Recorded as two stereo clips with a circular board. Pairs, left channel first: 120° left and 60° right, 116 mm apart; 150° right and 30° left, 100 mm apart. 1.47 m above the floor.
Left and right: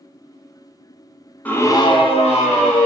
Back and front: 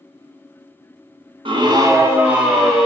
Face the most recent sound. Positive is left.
turn(degrees=120)